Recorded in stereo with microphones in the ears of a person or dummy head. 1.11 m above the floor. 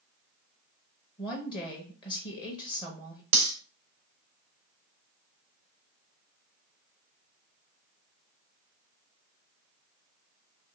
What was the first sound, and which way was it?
A woman speaking, 25° left (ahead or behind).